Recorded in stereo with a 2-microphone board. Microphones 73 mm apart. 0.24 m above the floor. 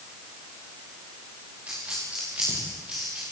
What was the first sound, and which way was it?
A dropped coin, 20° right (ahead or behind).